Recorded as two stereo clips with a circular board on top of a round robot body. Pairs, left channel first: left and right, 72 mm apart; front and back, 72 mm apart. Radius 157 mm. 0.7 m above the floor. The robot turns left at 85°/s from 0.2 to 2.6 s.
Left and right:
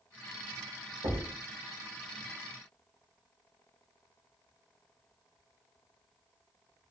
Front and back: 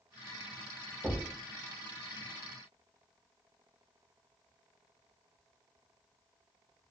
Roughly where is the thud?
Right.